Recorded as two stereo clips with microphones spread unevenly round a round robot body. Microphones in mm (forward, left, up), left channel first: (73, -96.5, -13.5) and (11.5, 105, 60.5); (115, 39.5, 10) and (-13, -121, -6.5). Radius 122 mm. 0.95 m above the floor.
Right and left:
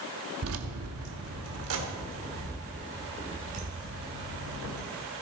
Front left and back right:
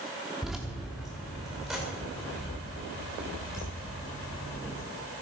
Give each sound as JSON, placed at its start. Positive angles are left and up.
{"t": 0.4, "sound": "keys jangling", "azimuth_deg": 140, "distance_m": 1.0}